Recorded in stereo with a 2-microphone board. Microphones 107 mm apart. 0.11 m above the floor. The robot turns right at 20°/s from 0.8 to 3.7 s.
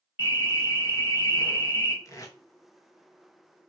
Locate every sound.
0.2 s an alarm: 15° right (ahead or behind), 1.3 m; by 1.9 s 20° right (ahead or behind), 1.3 m
2.0 s tape being pulled: 30° left (ahead or behind), 0.5 m